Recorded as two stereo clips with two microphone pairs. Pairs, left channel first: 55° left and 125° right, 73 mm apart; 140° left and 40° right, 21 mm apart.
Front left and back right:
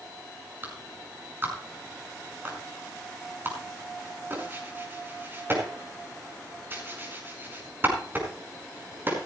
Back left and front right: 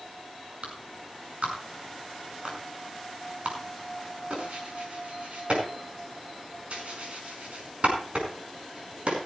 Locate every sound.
0.6 s a clap: 65° right, 5 m